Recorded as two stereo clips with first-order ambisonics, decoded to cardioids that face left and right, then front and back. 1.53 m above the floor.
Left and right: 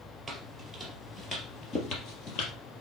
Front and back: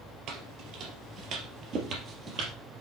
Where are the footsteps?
170° right, 2.5 m; by 2.5 s 120° left, 3 m.